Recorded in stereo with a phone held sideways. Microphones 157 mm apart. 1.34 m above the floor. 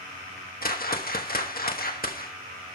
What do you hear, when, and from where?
0.6 s a whoosh: 70° left (ahead or behind), 1.2 m